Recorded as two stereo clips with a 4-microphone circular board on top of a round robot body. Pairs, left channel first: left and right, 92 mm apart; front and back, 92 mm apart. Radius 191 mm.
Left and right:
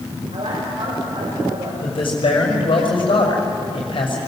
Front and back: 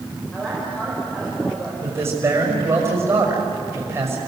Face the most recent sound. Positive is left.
turn(degrees=115)